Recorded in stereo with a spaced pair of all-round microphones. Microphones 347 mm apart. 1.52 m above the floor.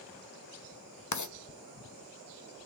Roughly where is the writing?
Left.